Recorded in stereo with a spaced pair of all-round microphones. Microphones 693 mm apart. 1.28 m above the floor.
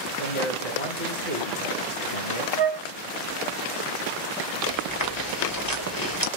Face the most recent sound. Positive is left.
turn(degrees=30)  # may be behind; listen again after turning